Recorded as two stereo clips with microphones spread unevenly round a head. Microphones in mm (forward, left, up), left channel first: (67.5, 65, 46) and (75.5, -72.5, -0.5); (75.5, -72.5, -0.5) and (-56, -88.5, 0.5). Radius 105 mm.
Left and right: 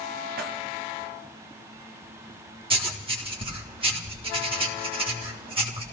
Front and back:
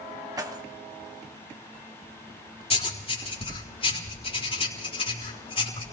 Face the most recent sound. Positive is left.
turn(degrees=-40)